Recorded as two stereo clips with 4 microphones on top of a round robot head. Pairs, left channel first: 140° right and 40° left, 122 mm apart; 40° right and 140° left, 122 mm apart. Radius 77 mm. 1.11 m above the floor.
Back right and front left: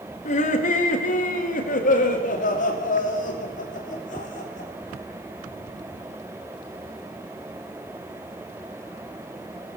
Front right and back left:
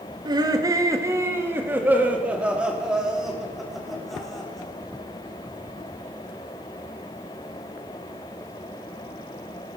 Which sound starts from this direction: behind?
Laughter, at 0.2 s.